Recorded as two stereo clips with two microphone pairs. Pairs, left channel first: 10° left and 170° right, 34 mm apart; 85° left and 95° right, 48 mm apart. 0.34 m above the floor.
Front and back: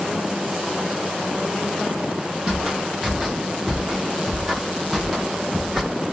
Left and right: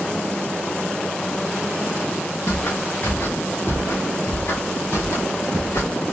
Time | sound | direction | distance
2.5 | footsteps | 125° left | 3.5 m